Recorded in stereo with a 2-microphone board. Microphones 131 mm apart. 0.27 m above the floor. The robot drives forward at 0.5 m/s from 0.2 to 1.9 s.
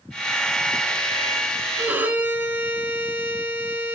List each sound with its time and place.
1.8 s a violin: 15° right (ahead or behind), 3 m